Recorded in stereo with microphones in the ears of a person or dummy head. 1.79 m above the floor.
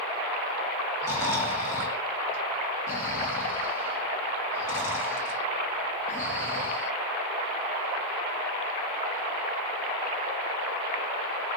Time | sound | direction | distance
1.0 | snoring | 15° left (ahead or behind) | 0.7 m